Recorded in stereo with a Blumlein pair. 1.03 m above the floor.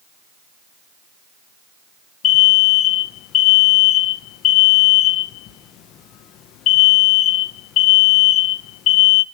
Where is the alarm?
35° left, 0.7 m.